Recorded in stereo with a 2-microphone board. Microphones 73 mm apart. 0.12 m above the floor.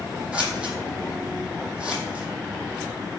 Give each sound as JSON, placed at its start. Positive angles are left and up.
{"t": 0.3, "sound": "scissors", "side_deg": -10, "distance_m": 0.8}